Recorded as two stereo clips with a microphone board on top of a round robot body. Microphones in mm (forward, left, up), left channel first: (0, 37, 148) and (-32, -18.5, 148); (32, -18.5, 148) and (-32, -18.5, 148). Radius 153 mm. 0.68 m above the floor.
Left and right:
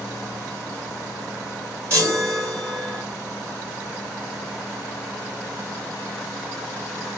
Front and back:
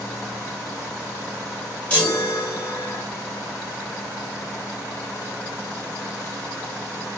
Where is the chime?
70° right, 2.5 m.